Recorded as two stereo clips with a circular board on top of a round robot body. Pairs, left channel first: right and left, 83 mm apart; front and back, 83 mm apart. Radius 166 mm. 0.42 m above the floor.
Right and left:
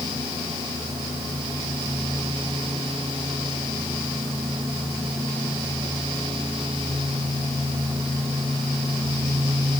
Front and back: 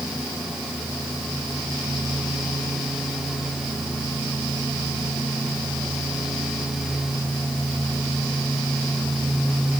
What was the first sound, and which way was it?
Only background noise.